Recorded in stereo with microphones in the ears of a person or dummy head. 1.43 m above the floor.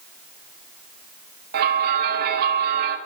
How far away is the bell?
About 2 m.